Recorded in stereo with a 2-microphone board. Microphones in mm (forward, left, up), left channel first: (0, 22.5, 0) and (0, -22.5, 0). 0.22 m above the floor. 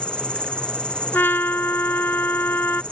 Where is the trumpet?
50° left (ahead or behind).